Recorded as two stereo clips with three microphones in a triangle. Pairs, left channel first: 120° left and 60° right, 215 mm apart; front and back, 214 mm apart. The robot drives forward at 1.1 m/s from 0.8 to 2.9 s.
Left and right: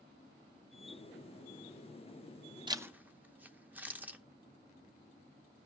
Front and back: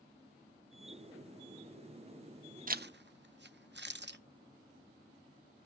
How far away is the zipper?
About 0.6 m.